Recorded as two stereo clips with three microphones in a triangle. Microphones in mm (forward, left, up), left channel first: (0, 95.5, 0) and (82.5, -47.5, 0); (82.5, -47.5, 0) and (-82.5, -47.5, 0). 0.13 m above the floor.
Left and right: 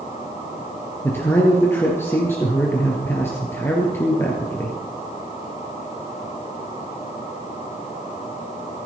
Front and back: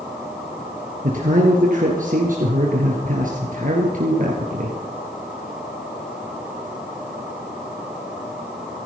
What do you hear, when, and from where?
1.0 s a man speaking: 165° right, 2.5 m